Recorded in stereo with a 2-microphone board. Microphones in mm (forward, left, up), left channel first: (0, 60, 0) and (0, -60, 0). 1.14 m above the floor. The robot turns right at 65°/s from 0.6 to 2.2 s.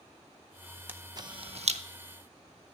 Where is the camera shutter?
15° right (ahead or behind), 0.6 m; by 1.8 s 70° right (ahead or behind), 0.6 m.